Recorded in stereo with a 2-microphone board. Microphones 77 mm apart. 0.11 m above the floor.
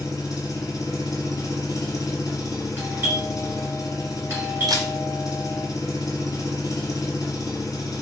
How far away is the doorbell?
About 1.6 m.